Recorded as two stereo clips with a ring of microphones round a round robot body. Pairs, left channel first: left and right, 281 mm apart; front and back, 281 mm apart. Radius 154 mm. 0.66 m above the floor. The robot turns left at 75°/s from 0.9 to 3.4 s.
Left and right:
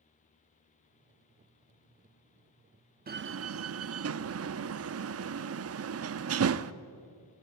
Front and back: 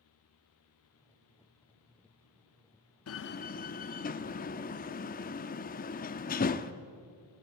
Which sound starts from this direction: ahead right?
A door slam, at 3.1 s.